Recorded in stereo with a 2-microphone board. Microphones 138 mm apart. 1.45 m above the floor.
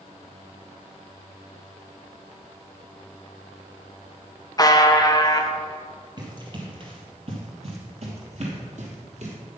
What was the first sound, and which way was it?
A buzzer, 30° left (ahead or behind).